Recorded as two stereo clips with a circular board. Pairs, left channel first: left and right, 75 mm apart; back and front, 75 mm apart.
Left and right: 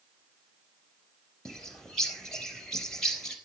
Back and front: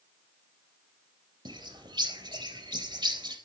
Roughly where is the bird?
Ahead.